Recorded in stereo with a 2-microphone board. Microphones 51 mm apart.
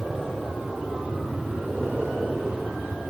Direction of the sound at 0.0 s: 10° right (ahead or behind).